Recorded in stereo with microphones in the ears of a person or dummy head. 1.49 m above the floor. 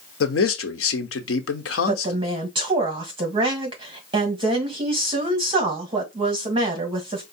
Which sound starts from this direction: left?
A man speaking, at 0.2 s.